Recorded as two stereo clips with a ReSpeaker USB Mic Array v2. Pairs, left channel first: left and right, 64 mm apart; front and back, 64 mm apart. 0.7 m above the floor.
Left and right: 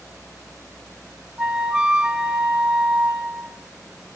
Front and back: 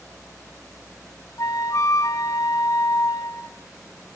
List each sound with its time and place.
1.4 s a flute: 15° right, 0.5 m